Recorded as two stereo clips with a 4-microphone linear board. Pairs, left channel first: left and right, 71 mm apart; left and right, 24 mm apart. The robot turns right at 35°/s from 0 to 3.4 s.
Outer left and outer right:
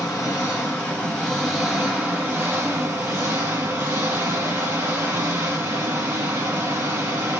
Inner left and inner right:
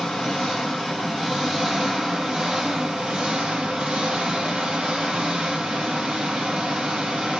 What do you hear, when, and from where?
0.0 s an engine running: 125° left, 1.4 m; by 7.4 s 115° right, 1.4 m